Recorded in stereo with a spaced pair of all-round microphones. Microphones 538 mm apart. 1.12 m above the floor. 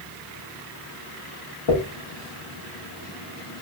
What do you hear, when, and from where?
1.7 s a dropped coin: 55° left (ahead or behind), 0.8 m